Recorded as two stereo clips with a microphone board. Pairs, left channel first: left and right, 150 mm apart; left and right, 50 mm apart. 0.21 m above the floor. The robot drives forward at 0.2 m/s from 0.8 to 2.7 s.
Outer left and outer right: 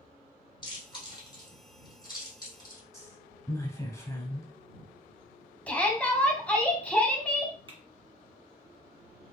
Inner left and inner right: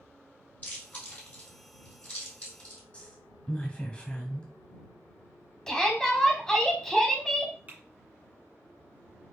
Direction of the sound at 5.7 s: 10° left (ahead or behind).